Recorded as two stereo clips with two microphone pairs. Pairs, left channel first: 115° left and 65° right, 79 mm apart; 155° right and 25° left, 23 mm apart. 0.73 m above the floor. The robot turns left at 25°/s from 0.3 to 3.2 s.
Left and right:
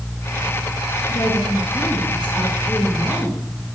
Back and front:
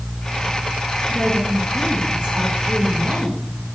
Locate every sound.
1.1 s a woman speaking: 75° left, 8 m; by 3.4 s 20° left, 8 m